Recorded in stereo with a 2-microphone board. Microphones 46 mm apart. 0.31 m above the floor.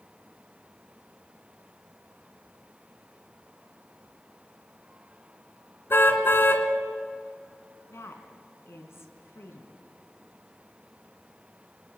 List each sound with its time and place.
5.9 s a car horn: 55° left (ahead or behind), 2 m
7.9 s a woman speaking: 70° left (ahead or behind), 3 m